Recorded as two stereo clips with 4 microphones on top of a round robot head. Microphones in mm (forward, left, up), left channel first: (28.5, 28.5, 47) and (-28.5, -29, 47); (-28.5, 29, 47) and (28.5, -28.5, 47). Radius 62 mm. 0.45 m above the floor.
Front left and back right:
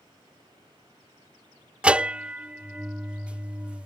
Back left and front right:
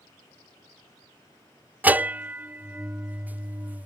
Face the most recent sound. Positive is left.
turn(degrees=-80)